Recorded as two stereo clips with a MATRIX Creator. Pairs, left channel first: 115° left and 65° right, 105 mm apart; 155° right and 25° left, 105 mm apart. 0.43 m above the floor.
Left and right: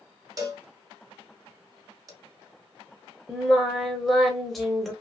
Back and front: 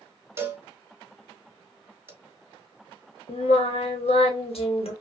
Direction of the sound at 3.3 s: 160° right.